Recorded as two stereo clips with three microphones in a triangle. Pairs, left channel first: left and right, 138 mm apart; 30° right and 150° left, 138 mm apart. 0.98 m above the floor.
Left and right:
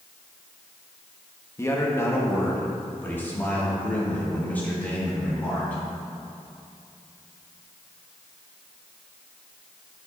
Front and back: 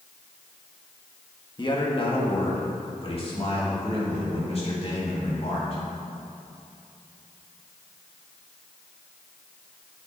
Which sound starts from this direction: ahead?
A man speaking, at 1.6 s.